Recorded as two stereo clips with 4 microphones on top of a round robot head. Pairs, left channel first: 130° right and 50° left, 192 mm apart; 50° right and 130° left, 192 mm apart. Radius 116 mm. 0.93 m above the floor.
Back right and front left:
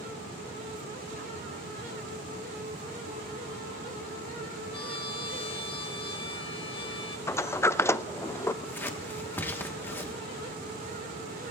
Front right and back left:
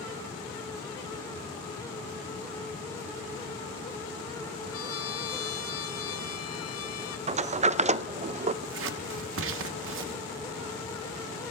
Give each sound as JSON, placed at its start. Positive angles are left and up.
{"t": 4.7, "sound": "a trumpet", "azimuth_deg": -65, "distance_m": 1.2}
{"t": 7.3, "sound": "a sliding door", "azimuth_deg": 160, "distance_m": 0.5}
{"t": 8.6, "sound": "scissors", "azimuth_deg": 150, "distance_m": 1.2}